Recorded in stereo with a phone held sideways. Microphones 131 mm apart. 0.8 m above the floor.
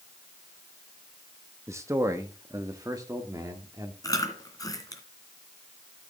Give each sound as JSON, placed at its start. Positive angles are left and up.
{"t": 1.7, "sound": "a man speaking", "side_deg": -20, "distance_m": 0.9}
{"t": 4.0, "sound": "chewing", "side_deg": 25, "distance_m": 2.5}